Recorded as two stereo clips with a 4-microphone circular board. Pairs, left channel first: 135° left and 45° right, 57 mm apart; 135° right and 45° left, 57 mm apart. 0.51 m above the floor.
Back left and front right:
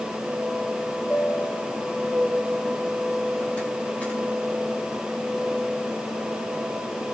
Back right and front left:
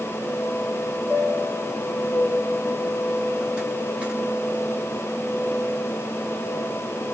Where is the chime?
95° left, 1.4 m.